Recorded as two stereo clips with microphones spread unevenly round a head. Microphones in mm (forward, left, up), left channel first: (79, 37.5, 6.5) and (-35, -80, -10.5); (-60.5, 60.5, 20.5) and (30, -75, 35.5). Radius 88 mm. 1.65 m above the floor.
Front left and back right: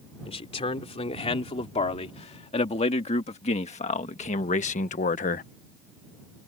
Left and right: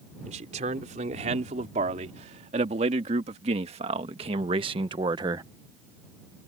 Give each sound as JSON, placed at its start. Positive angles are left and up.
{"t": 0.2, "sound": "a man speaking", "azimuth_deg": -5}